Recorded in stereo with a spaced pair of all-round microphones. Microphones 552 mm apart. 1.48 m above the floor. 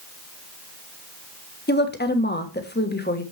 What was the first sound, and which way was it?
A woman speaking, 20° left (ahead or behind).